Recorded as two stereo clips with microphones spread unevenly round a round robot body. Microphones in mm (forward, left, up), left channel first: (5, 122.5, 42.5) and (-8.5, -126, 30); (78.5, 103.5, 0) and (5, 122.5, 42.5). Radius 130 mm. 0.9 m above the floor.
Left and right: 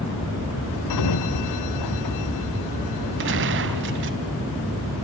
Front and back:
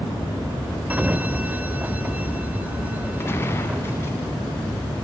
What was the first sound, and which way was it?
A sliding door, 100° left.